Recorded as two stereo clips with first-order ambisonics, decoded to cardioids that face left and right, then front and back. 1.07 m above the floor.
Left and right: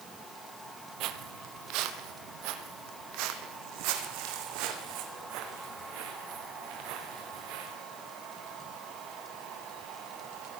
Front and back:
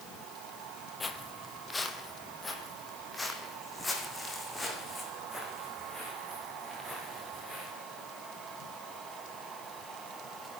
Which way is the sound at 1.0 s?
75° right.